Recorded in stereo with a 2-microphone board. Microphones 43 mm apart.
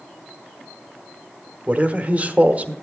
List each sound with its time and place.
1.7 s a man speaking: 35° right (ahead or behind), 1.0 m